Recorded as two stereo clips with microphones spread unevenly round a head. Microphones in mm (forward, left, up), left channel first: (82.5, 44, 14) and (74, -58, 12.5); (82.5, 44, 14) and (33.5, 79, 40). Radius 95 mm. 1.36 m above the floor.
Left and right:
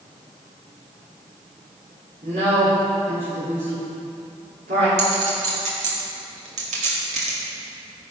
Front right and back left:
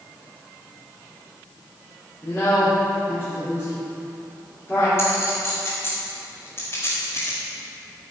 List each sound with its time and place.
2.2 s a woman speaking: 120° right, 3.5 m
5.0 s a clink: 115° right, 1.8 m